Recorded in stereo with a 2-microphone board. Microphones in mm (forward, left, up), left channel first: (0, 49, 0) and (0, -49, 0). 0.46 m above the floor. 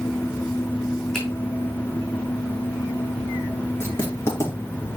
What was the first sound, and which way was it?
A finger snap, 5° left (ahead or behind).